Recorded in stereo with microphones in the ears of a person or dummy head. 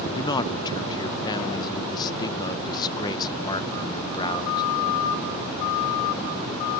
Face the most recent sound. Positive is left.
turn(degrees=25)  # may be behind; listen again after turning